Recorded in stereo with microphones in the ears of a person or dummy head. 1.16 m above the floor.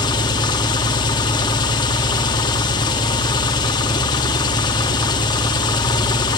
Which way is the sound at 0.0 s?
25° left (ahead or behind).